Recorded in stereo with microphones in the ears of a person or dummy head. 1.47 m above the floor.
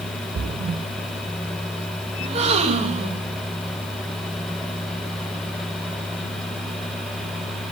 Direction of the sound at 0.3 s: 35° right (ahead or behind).